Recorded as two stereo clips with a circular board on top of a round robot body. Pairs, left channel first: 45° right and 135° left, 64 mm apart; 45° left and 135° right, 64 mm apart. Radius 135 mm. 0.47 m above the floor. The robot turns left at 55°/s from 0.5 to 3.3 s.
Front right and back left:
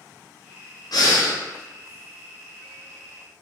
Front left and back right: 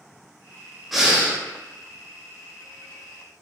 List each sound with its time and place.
0.9 s breathing: 45° right, 0.8 m; by 1.4 s 70° right, 0.8 m